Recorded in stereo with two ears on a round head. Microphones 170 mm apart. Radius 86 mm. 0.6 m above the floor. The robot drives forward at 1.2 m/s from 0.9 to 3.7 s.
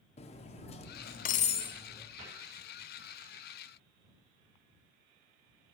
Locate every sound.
0.2 s cutlery clinking: 35° left (ahead or behind), 0.6 m; by 2.1 s 15° left (ahead or behind), 1.1 m
2.2 s a cupboard door: 80° right, 7 m